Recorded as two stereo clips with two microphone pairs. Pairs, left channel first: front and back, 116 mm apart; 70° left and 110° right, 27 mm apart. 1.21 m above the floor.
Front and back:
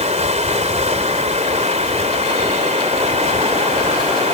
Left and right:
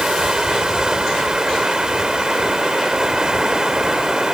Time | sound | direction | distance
0.0 | running water | 170° right | ?